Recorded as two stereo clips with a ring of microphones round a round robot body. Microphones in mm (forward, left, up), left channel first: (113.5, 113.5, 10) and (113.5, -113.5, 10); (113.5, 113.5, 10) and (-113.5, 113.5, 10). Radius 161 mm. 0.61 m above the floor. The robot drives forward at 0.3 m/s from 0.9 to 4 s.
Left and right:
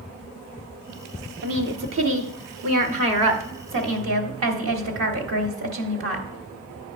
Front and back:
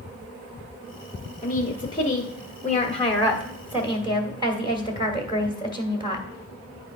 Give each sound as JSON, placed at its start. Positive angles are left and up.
{"t": 1.4, "sound": "a woman speaking", "azimuth_deg": -65, "distance_m": 1.3}